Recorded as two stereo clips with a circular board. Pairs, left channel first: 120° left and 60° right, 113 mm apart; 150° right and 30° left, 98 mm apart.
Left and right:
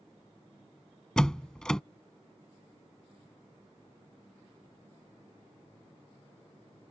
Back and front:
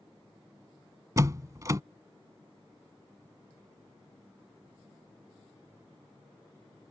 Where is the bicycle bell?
I don't hear a bicycle bell.